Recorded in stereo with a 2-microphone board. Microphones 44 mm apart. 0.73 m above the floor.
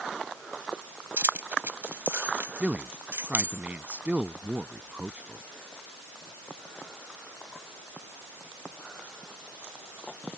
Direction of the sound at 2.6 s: 30° right (ahead or behind).